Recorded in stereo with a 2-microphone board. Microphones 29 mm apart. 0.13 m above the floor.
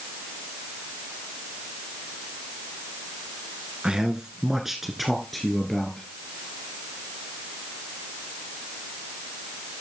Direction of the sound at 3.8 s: 35° right (ahead or behind).